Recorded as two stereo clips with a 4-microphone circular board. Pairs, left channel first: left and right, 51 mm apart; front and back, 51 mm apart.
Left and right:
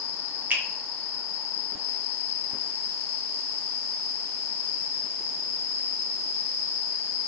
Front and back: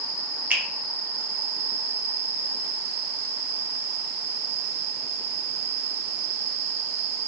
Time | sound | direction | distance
0.5 | a finger snap | 135° right | 1.1 m